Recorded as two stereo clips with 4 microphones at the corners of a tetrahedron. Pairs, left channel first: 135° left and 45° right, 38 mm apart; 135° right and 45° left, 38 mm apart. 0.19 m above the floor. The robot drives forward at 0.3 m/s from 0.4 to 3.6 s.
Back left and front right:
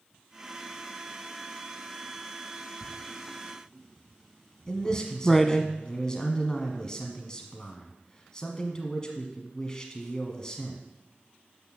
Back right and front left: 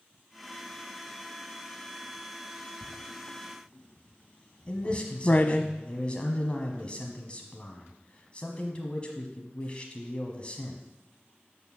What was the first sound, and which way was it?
Writing, 110° right.